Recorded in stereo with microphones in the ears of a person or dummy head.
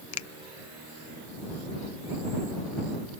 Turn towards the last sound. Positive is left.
turn(degrees=85)